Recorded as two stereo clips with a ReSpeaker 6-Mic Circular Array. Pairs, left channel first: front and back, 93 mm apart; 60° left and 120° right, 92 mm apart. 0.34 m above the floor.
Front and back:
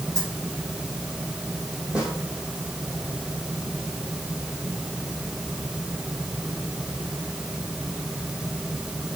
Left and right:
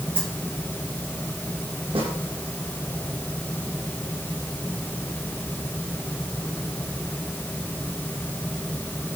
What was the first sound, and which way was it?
A dropped coin, 125° right.